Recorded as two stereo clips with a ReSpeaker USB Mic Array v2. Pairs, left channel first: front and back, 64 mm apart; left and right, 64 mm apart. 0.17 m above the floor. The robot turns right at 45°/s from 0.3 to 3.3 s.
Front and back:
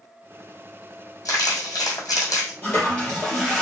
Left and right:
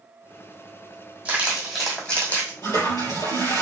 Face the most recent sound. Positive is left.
turn(degrees=95)